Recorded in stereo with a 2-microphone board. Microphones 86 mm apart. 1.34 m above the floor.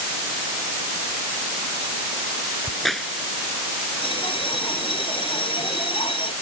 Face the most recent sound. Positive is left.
turn(degrees=85)